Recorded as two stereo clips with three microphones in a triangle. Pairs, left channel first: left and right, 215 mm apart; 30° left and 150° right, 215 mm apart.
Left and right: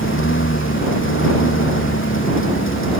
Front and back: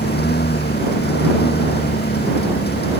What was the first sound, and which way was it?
A lawn mower, 70° left.